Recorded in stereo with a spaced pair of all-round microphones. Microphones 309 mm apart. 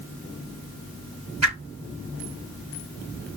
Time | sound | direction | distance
1.4 | a whoosh | 55° right (ahead or behind) | 1.0 m